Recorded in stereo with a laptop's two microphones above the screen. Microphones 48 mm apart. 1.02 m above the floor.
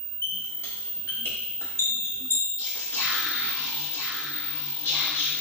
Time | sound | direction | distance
0.2 | a squeak | 65° left (ahead or behind) | 2 m
2.6 | whispering | 65° left (ahead or behind) | 2 m